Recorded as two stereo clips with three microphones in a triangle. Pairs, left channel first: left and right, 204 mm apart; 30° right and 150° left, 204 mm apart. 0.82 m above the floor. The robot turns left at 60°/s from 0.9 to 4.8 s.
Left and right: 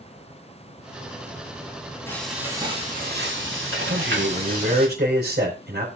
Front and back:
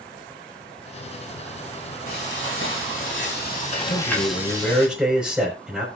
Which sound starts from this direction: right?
A man speaking, at 3.9 s.